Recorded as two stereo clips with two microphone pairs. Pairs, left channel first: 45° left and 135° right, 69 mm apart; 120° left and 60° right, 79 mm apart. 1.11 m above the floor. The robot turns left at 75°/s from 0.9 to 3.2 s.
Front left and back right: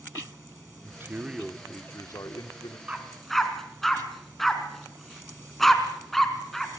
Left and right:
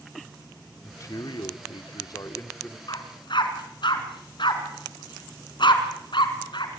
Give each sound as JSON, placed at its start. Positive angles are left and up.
{"t": 0.8, "sound": "a man speaking", "azimuth_deg": 175, "distance_m": 2.5}
{"t": 2.9, "sound": "a dog barking", "azimuth_deg": 150, "distance_m": 3.0}